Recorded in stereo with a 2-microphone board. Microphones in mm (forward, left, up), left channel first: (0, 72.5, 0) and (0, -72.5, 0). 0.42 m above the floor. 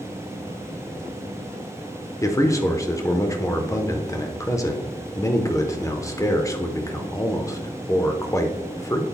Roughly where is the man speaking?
Left.